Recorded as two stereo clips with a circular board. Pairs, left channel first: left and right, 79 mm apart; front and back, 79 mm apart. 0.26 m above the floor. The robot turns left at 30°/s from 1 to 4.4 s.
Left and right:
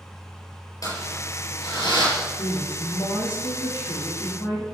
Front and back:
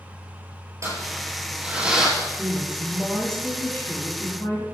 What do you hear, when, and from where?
0.8 s crumpling: 130° left, 6.5 m; by 2.1 s 100° left, 6.5 m
2.2 s a woman speaking: 120° left, 7 m; by 4.7 s 50° left, 7 m